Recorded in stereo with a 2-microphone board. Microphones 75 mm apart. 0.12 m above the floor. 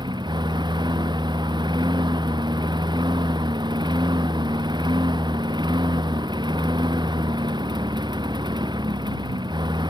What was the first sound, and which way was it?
A lawn mower, 70° right (ahead or behind).